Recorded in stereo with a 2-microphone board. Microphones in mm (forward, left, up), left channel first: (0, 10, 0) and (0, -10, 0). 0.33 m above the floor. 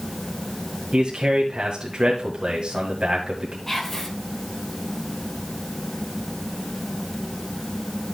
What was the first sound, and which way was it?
A man speaking, 55° right (ahead or behind).